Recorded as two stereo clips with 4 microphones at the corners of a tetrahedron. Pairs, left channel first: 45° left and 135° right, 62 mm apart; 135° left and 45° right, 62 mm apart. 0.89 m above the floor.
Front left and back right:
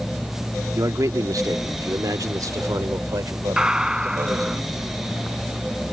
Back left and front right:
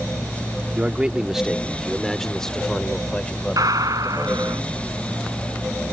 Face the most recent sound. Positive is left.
turn(degrees=-55)